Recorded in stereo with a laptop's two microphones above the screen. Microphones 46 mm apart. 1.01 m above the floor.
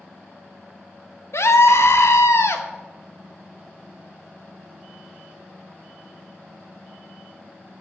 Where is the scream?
70° left (ahead or behind), 1.2 m.